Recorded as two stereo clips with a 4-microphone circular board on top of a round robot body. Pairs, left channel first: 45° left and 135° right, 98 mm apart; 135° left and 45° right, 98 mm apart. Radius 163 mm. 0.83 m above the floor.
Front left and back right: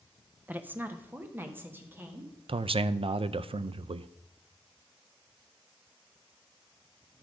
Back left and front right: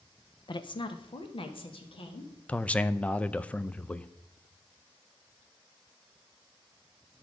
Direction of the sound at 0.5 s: 155° left.